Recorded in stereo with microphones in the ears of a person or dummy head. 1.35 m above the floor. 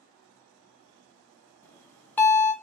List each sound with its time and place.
1.6 s a bell: 10° left (ahead or behind), 0.9 m